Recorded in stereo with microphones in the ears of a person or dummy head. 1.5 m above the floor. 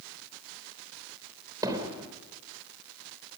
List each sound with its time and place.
1.6 s hammering: 15° right (ahead or behind), 3 m